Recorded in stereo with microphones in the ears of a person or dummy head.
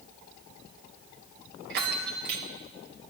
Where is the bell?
50° right (ahead or behind), 1.4 m.